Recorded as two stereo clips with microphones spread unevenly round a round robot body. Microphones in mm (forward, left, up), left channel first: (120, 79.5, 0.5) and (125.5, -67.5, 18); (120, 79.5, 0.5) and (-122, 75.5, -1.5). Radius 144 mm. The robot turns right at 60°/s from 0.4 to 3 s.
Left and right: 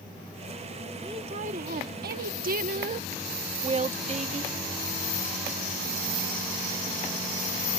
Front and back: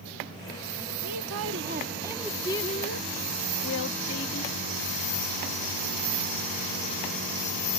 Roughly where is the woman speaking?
Behind.